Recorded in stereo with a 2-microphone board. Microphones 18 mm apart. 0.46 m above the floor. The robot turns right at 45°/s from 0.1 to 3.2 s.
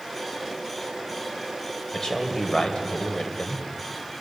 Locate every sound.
1.9 s a man speaking: 35° left, 2.5 m; by 3.6 s 90° left, 2.5 m